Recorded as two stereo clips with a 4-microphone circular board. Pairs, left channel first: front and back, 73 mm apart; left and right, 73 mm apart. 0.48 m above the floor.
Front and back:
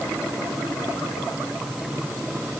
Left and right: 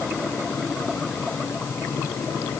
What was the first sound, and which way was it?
Only background noise.